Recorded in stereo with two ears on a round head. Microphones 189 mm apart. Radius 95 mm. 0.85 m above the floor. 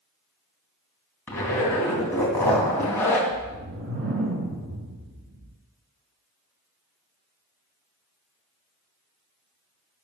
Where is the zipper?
10° left (ahead or behind), 2.5 m.